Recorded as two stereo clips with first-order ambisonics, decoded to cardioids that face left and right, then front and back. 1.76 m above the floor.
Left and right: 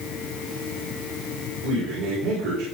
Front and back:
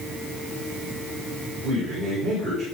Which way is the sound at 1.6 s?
100° right.